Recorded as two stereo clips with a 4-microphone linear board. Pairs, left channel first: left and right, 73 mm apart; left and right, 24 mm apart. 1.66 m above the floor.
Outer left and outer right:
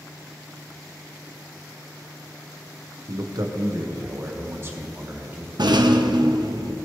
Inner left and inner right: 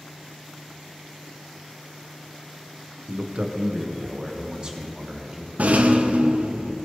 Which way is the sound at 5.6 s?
80° right.